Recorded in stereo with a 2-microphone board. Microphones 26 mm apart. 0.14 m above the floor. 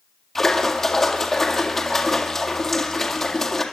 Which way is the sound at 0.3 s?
20° left (ahead or behind).